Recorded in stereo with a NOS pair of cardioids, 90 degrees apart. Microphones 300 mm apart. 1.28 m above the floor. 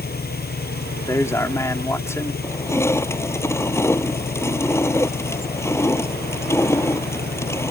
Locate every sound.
0.0 s an engine running: 30° left
1.1 s a man speaking: 10° left
2.4 s crushing: 10° left